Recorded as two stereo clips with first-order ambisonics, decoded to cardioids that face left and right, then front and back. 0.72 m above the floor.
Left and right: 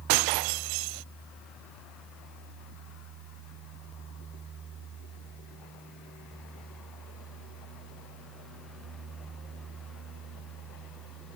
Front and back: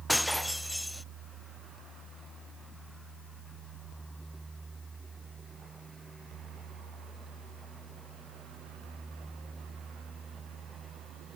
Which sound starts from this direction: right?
Breaking glass, at 0.1 s.